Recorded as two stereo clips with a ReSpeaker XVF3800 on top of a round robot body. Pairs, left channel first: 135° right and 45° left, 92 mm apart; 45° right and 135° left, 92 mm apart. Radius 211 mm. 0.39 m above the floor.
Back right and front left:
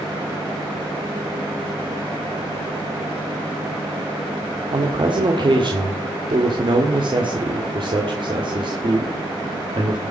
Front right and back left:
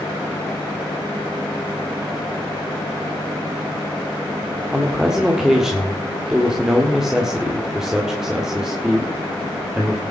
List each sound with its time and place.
4.7 s a man speaking: 50° left, 1.8 m